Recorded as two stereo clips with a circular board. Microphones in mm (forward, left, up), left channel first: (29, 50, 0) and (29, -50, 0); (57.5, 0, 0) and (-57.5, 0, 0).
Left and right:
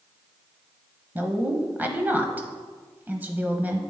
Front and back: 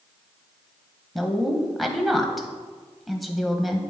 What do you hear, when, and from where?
1.1 s a woman speaking: 90° right, 0.9 m